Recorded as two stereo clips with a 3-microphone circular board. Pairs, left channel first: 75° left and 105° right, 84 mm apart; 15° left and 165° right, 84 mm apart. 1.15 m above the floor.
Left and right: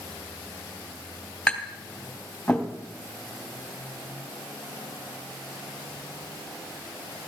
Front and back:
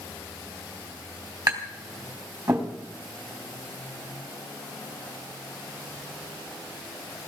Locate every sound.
1.5 s tapping: 155° left, 4 m